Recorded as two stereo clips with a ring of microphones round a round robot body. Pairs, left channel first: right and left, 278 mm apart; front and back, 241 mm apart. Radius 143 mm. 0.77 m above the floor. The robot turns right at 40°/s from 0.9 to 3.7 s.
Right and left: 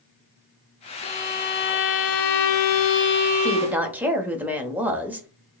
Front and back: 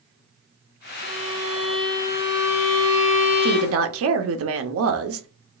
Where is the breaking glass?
No breaking glass in this recording.